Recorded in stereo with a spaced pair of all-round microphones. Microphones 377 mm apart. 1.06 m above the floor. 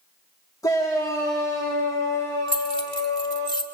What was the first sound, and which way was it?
A shout, 10° left (ahead or behind).